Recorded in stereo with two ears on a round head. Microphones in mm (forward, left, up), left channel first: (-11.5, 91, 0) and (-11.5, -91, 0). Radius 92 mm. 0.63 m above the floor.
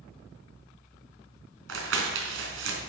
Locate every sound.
1.7 s crumpling: 70° right (ahead or behind), 3.5 m